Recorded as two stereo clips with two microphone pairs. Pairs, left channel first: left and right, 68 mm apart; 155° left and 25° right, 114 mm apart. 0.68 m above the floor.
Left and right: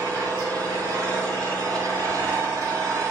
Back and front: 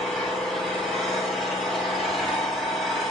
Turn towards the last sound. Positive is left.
turn(degrees=-115)